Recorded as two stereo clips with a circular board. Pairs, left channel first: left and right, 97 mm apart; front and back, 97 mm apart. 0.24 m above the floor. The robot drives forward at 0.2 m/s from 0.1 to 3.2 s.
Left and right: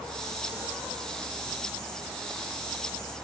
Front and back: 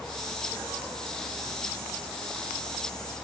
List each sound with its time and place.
Only background noise.